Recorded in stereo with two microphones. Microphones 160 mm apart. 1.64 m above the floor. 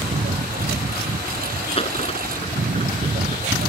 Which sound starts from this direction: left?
A dropped coin, at 1.8 s.